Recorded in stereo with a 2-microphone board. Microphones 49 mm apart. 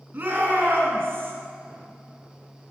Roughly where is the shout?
Right.